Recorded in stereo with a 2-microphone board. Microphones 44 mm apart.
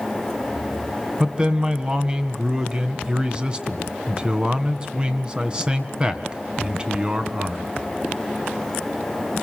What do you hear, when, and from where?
1.2 s a man speaking: 20° right (ahead or behind), 1.7 m